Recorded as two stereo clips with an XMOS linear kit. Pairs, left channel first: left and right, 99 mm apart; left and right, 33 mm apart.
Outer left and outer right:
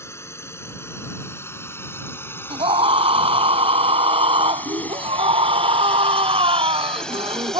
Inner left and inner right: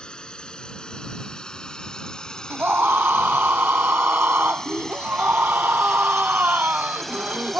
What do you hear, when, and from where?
0.0 s a drone: 30° left (ahead or behind); by 7.6 s 5° left (ahead or behind)
2.5 s a scream: 80° right